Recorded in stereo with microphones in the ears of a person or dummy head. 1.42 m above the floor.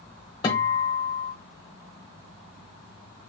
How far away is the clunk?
No clunk in this recording.